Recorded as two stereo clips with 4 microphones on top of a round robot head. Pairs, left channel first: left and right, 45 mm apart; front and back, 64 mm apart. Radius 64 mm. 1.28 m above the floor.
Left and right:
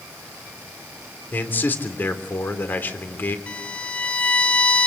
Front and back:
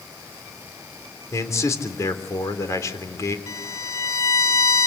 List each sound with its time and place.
1.3 s a man speaking: 45° left, 3.5 m
3.5 s a violin: 30° left, 0.7 m